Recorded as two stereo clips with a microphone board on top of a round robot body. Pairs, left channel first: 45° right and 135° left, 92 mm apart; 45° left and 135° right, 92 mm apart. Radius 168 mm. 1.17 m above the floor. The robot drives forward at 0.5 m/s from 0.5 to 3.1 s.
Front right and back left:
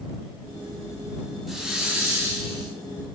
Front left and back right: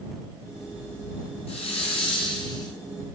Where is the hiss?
45° left, 1.1 m; by 2.7 s 95° left, 1.0 m.